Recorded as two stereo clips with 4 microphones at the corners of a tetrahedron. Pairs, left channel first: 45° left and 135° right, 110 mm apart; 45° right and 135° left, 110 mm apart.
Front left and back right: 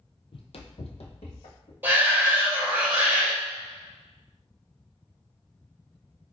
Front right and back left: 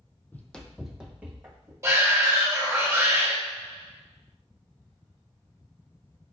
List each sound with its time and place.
0.3 s running footsteps: 25° left, 0.5 m; by 1.7 s 65° left, 1.1 m
1.8 s a shout: 165° left, 1.3 m